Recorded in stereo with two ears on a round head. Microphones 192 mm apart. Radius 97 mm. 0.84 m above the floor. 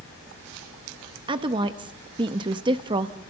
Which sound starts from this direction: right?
A woman speaking, at 1.3 s.